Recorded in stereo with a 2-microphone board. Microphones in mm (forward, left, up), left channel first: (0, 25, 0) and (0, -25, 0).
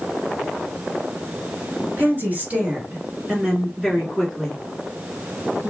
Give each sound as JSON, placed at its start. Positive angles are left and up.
{"t": 2.0, "sound": "a woman speaking", "side_deg": -40, "distance_m": 1.8}